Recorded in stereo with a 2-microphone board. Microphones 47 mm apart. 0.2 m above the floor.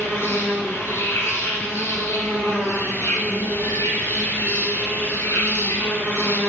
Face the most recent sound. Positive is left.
turn(degrees=70)  # may be behind; listen again after turning